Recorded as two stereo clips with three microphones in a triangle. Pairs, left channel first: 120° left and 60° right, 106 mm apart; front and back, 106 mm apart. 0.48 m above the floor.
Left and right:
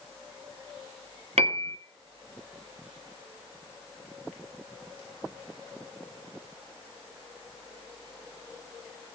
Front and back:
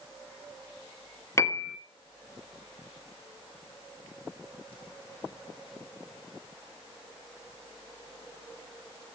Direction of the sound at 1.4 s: 60° right.